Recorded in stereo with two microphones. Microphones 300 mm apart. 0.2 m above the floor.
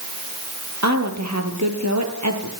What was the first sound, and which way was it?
A woman speaking, 65° right (ahead or behind).